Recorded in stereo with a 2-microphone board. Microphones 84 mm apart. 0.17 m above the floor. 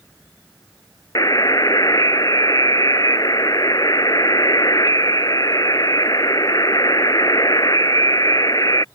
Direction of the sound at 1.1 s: 50° left (ahead or behind).